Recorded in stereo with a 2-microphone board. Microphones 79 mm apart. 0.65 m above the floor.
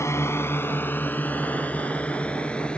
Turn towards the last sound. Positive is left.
turn(degrees=10)  # may be behind; listen again after turning